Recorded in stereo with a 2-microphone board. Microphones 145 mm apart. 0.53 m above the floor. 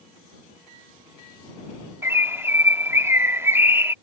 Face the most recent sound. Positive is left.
turn(degrees=-15)  # may be behind; listen again after turning